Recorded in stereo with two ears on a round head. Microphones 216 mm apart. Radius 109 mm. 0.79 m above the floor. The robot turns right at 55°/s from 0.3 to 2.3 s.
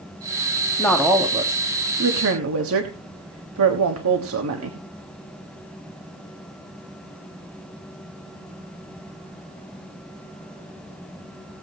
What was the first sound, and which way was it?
A woman speaking, 170° left.